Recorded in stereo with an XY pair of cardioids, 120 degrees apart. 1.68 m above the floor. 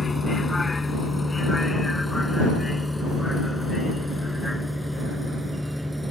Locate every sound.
0.0 s a vehicle: 25° left; by 6.1 s straight ahead